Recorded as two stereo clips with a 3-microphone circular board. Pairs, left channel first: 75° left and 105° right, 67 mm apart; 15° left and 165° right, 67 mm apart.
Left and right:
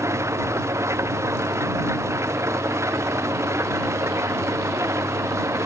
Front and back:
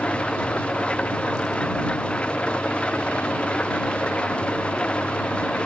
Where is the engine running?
60° right.